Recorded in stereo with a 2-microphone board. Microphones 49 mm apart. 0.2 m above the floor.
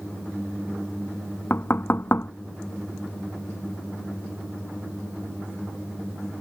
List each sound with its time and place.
1.5 s knocking: 50° left (ahead or behind)